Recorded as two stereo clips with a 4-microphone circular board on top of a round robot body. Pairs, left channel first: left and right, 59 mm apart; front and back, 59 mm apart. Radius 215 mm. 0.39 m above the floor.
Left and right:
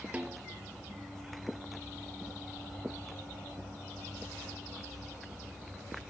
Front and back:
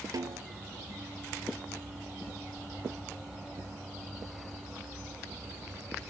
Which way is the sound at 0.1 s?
160° right.